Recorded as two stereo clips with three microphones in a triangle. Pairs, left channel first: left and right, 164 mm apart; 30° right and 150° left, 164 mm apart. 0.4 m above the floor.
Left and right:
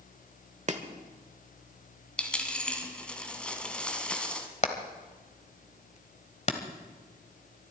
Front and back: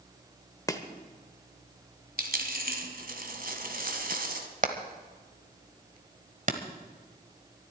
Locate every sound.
0.7 s chopping: 90° right, 1.2 m
2.2 s a dropped coin: 175° left, 1.6 m
4.6 s hammering: 125° left, 1.3 m